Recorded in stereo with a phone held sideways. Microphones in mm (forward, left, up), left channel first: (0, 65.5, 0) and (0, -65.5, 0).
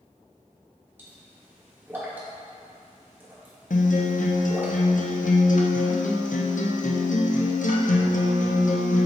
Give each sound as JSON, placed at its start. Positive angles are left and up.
{"t": 1.0, "sound": "a pop", "side_deg": -15, "distance_m": 1.4}
{"t": 3.7, "sound": "a guitar", "side_deg": 80, "distance_m": 0.6}